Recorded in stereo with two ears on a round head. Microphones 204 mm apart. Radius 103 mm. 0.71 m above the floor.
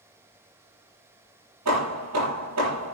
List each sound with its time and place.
1.6 s hammering: 85° right, 7.5 m